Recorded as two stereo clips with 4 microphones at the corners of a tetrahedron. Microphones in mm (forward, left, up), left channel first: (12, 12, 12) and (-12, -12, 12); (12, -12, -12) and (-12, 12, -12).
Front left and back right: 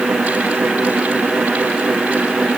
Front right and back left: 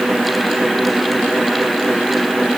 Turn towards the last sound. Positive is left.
No sound to turn to.